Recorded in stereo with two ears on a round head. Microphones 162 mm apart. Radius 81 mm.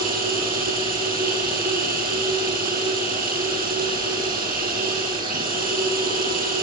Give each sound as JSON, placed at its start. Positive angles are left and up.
{"t": 0.0, "sound": "running water", "side_deg": -50, "distance_m": 8.5}